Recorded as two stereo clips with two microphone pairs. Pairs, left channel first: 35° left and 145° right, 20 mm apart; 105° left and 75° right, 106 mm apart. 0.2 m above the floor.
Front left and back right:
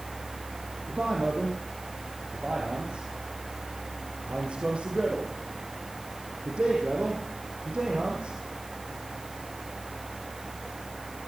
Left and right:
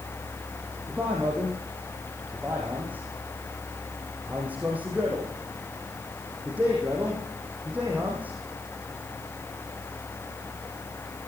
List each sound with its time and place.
0.9 s a man speaking: 150° right, 7 m